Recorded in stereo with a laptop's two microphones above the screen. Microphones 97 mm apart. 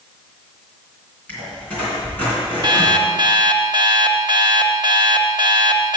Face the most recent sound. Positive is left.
turn(degrees=-45)  # may be behind; listen again after turning